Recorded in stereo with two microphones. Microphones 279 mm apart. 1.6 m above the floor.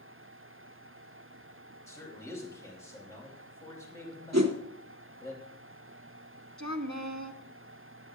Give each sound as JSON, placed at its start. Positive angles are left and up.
{"t": 1.9, "sound": "a man speaking", "side_deg": 10, "distance_m": 4.0}
{"t": 4.3, "sound": "a whoosh", "side_deg": -65, "distance_m": 1.3}
{"t": 6.6, "sound": "a woman speaking", "side_deg": -75, "distance_m": 1.3}